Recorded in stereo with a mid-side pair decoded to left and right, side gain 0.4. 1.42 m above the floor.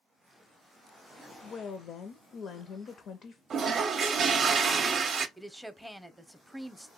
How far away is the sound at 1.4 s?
About 0.5 m.